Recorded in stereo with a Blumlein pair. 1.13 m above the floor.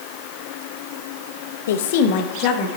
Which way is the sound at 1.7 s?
60° left.